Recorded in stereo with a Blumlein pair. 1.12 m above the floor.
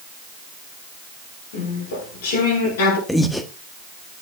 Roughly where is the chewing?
Ahead left.